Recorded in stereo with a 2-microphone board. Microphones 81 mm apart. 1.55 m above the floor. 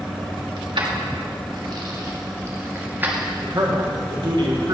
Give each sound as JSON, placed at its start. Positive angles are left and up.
{"t": 0.6, "sound": "keys jangling", "side_deg": -65, "distance_m": 1.7}
{"t": 3.4, "sound": "a man speaking", "side_deg": -60, "distance_m": 1.8}